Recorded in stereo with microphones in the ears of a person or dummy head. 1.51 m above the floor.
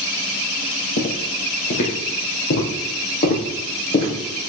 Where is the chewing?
I don't hear chewing.